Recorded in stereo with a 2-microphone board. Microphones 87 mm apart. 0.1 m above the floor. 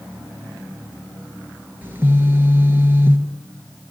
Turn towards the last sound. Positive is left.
turn(degrees=-25)  # may be behind; listen again after turning